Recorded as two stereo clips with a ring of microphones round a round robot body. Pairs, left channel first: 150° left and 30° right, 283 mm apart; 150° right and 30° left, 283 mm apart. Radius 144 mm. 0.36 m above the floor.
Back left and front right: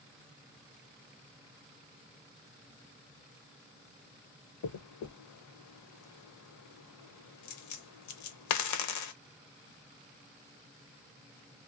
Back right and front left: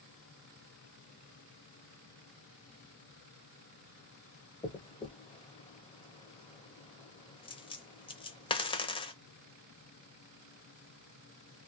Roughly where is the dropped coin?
Behind left.